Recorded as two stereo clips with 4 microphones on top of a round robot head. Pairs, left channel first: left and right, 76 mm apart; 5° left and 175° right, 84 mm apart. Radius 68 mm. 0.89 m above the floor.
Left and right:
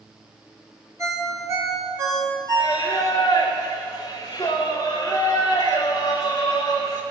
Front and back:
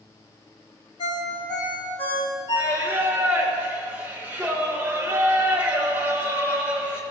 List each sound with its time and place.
1.0 s a ringtone: 40° right, 2.5 m
2.6 s singing: 130° left, 0.6 m